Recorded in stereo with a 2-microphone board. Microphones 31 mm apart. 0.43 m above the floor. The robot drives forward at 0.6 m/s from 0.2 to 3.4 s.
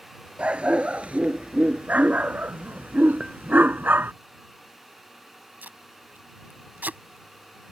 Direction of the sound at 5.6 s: 80° right.